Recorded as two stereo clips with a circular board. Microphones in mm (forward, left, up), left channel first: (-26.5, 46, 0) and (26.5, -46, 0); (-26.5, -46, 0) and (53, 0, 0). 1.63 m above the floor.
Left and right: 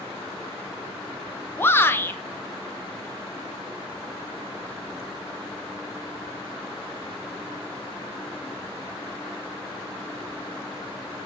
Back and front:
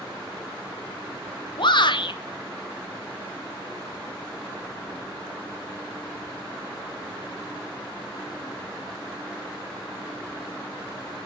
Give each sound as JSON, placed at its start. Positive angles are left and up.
{"t": 1.6, "sound": "a shout", "azimuth_deg": -170, "distance_m": 0.5}